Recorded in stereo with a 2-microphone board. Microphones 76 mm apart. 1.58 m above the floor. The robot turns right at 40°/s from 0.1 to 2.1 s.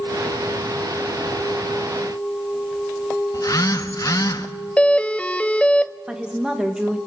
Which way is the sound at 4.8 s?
15° left (ahead or behind).